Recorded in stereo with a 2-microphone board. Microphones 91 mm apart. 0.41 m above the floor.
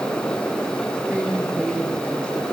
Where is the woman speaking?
15° right (ahead or behind), 5 m.